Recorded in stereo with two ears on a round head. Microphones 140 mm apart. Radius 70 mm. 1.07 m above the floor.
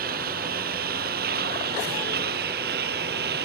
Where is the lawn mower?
65° right (ahead or behind); by 3.5 s 70° right (ahead or behind).